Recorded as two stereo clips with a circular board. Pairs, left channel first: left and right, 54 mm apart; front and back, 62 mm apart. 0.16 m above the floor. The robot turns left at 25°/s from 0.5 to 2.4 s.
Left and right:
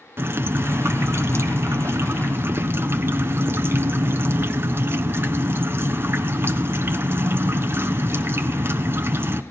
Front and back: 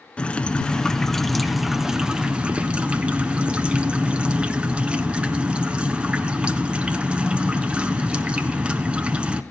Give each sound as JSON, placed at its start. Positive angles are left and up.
{"t": 0.2, "sound": "dripping", "azimuth_deg": -65, "distance_m": 1.2}